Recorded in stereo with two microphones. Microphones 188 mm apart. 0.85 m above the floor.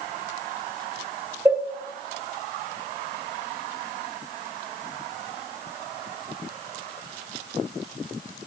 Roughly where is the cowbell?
Centre.